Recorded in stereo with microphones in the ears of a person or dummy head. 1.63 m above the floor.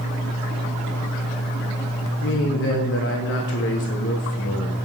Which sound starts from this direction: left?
A man speaking, at 2.2 s.